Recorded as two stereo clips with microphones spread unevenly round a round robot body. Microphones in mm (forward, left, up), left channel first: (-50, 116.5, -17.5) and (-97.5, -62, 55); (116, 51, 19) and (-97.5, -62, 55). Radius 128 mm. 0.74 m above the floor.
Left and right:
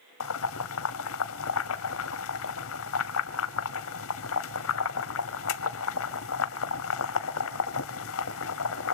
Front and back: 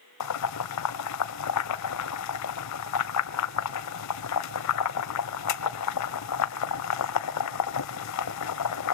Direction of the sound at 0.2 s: 55° left.